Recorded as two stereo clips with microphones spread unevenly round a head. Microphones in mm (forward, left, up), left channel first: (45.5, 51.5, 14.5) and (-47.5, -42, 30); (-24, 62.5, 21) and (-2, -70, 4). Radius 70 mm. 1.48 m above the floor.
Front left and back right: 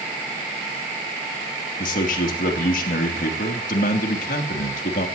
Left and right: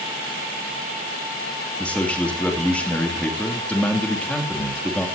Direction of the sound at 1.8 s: 15° left.